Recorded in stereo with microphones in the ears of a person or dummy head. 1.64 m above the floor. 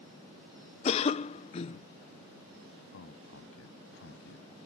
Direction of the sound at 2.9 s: 70° left (ahead or behind).